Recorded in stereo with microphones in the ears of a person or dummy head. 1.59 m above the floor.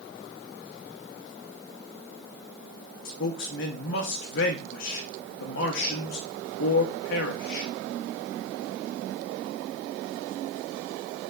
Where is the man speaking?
60° left (ahead or behind), 0.7 m.